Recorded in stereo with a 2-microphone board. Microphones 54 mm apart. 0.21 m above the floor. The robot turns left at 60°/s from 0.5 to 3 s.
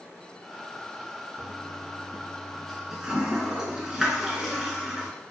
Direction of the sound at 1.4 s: 70° left (ahead or behind).